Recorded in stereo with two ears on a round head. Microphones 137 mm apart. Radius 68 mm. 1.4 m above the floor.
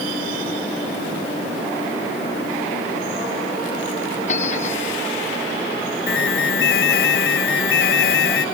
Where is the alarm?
70° left (ahead or behind).